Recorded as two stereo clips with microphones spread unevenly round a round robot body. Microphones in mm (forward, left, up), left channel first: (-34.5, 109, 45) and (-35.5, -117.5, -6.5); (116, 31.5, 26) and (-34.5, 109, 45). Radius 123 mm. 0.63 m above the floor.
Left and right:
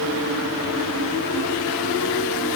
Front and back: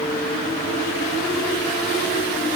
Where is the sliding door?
I don't hear a sliding door.